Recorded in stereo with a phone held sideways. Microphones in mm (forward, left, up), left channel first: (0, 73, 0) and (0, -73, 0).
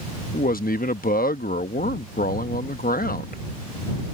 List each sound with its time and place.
0.3 s a man speaking: 80° left